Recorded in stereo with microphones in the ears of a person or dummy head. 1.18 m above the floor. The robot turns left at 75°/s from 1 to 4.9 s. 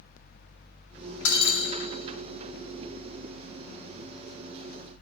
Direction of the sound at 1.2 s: 80° left.